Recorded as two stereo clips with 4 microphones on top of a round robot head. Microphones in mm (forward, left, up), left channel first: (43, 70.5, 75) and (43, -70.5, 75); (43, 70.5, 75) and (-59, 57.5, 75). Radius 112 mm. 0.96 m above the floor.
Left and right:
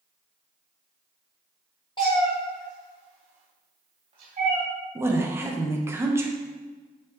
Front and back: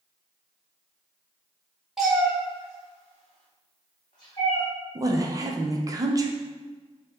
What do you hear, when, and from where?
2.0 s a cat meowing: 105° left, 0.6 m; by 4.6 s 55° right, 1.4 m
5.0 s a woman speaking: 150° right, 0.6 m